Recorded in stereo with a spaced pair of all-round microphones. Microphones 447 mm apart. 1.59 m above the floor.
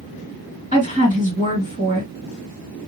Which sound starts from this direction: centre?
A woman speaking, at 0.7 s.